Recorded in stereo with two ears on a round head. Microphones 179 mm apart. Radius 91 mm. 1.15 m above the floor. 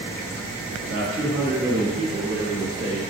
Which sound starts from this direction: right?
A man speaking, at 0.8 s.